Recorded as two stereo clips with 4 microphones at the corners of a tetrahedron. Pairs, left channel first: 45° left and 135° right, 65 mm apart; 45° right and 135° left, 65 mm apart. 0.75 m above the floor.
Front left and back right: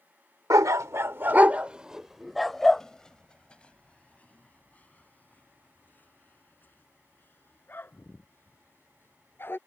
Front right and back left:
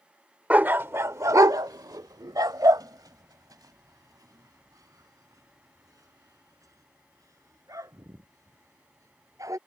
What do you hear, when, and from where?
0.5 s a dog barking: 160° right; by 9.6 s 100° left